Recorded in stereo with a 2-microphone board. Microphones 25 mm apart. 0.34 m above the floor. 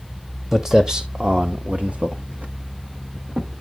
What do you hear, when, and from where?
0.5 s footsteps: 20° right (ahead or behind), 0.9 m; by 3.6 s 70° right (ahead or behind), 1.5 m